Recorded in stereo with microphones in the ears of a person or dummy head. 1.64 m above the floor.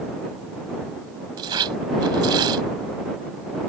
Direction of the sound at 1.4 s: 20° right (ahead or behind).